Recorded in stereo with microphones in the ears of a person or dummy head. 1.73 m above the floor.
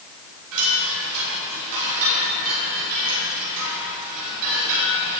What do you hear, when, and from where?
0.5 s a chime: 75° right (ahead or behind), 6 m